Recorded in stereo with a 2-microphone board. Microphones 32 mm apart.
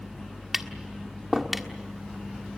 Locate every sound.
0.5 s tapping: 5° right (ahead or behind), 1.4 m